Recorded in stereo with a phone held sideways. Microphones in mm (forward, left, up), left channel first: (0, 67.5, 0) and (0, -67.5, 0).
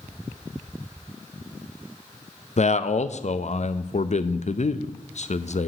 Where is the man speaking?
55° left (ahead or behind), 0.5 m.